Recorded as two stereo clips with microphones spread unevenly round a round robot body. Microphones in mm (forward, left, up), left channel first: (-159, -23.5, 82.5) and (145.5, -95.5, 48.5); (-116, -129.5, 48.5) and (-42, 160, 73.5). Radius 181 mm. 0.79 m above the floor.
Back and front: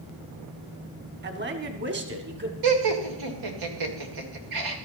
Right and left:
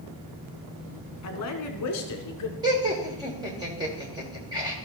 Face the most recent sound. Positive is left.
turn(degrees=-5)